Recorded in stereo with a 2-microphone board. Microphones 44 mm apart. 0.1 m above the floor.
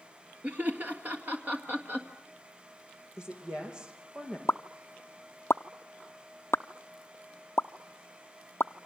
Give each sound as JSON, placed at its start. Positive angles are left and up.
{"t": 0.4, "sound": "laughter", "side_deg": -40, "distance_m": 1.6}
{"t": 3.2, "sound": "a woman speaking", "side_deg": -20, "distance_m": 5.5}
{"t": 4.5, "sound": "a pop", "side_deg": 70, "distance_m": 0.6}